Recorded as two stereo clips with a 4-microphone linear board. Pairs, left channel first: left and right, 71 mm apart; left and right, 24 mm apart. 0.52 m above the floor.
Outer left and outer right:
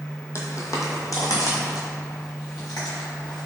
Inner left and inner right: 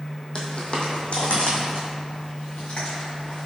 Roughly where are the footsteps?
Left.